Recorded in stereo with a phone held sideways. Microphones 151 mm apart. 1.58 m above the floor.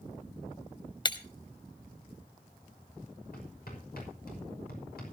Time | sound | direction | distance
1.1 | breaking glass | 30° left (ahead or behind) | 1.1 m
3.3 | hammering | 80° left | 5.5 m